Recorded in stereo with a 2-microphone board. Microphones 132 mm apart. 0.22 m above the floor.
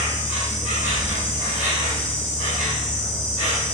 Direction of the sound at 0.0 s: 70° right (ahead or behind).